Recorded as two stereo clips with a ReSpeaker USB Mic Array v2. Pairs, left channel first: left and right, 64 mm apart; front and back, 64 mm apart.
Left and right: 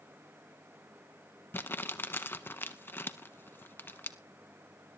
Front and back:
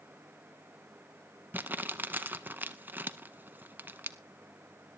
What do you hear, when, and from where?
1.5 s crumpling: 130° left, 0.7 m